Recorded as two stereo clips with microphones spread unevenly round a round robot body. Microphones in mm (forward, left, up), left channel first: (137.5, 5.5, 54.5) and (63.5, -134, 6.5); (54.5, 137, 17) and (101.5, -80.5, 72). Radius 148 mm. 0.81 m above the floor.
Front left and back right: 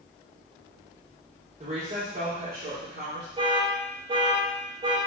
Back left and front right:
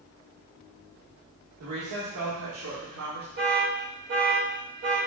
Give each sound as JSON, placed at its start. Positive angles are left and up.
{"t": 1.6, "sound": "a woman speaking", "azimuth_deg": -80, "distance_m": 1.9}
{"t": 3.4, "sound": "an alarm", "azimuth_deg": -120, "distance_m": 1.8}